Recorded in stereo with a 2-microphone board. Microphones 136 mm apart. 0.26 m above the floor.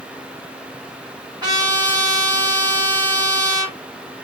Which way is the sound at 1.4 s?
30° right (ahead or behind).